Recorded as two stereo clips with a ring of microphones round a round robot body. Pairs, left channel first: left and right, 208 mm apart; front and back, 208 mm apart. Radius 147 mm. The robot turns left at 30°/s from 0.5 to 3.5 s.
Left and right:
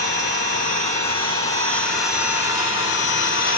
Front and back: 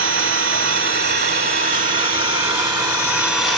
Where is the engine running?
Straight behind, 1.6 m; by 3.6 s 90° left, 1.6 m.